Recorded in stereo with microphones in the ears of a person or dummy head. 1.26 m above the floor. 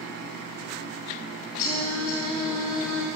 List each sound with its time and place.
1.6 s singing: 50° left (ahead or behind), 3.5 m